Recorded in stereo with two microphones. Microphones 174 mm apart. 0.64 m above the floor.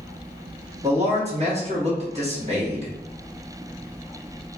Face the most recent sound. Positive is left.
turn(degrees=-40)  # may be behind; listen again after turning